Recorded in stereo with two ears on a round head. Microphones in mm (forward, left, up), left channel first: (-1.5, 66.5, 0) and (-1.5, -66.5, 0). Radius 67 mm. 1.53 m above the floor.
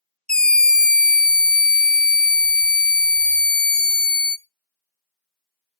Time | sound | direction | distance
0.3 | a scream | 5° left (ahead or behind) | 0.5 m